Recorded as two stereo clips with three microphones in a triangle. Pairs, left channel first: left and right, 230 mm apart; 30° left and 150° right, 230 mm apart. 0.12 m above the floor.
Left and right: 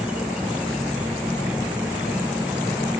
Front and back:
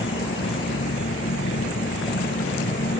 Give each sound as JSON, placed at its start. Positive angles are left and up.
{"t": 0.0, "sound": "an insect", "azimuth_deg": -5}